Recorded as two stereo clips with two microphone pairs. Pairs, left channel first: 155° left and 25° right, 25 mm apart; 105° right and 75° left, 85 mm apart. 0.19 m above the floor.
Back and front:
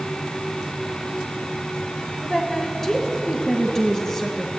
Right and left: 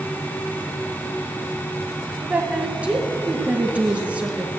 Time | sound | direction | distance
2.2 | a woman speaking | 115° left | 1.1 m